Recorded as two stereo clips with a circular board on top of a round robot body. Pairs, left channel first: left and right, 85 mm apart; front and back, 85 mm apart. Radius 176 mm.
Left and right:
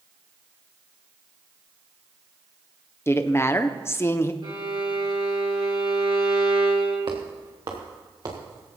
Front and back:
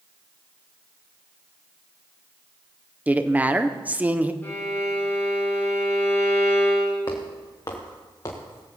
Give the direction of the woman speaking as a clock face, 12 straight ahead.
8 o'clock.